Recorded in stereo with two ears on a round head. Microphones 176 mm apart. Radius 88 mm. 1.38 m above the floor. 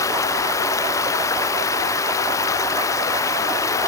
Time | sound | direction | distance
0.0 | running water | 15° left (ahead or behind) | ?